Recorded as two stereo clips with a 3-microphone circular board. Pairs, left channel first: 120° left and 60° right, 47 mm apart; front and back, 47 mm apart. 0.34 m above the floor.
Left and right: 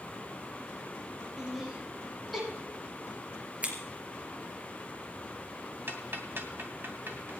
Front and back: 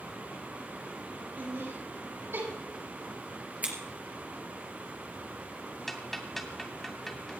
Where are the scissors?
120° right, 3.5 m.